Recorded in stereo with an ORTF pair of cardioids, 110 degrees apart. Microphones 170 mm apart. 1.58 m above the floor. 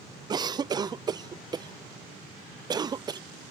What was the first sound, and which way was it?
A cough, 25° right.